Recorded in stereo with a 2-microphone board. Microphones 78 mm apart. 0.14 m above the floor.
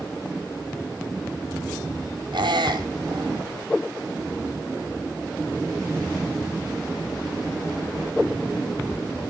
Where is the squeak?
75° right (ahead or behind), 1.0 m.